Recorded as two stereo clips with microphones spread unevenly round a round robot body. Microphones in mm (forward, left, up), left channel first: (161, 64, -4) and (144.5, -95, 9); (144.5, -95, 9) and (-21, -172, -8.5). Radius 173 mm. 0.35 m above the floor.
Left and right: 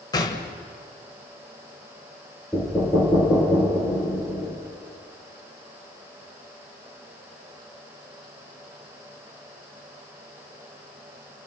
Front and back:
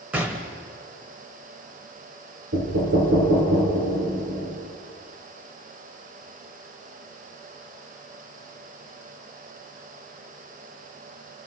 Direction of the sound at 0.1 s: 130° left.